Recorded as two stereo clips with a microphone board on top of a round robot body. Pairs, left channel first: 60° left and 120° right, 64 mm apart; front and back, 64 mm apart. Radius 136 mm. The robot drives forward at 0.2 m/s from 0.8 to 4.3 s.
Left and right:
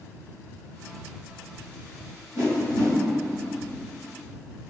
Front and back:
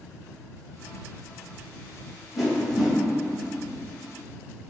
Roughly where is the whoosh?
Right.